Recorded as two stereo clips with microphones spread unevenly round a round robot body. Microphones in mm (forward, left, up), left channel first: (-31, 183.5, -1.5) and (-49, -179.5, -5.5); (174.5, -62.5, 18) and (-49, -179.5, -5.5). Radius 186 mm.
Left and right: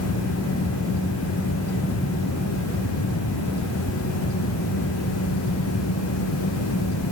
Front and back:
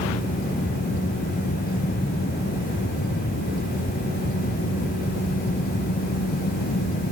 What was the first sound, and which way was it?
Only background noise.